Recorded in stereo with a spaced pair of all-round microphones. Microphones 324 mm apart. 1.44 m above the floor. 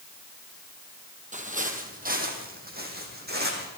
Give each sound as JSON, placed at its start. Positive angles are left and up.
{"t": 1.3, "sound": "footsteps", "side_deg": -20, "distance_m": 2.5}